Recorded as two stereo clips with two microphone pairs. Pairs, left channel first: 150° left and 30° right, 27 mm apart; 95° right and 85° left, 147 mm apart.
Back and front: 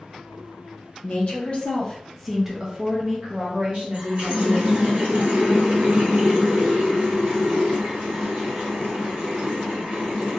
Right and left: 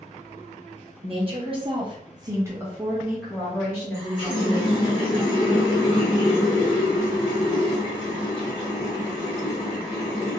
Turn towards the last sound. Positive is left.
turn(degrees=-40)